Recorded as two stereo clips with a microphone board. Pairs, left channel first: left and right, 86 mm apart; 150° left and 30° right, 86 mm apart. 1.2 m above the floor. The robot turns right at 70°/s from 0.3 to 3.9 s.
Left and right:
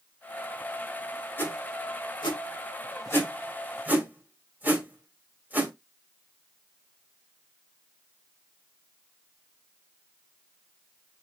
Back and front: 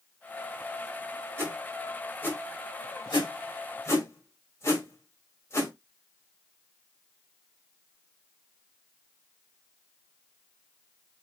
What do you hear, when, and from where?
1.4 s a whoosh: 25° left, 1.7 m; by 5.7 s 155° right, 1.7 m